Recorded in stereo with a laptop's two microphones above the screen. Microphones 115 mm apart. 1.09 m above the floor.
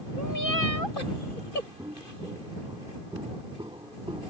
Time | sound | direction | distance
1.8 | footsteps | 35° right (ahead or behind) | ?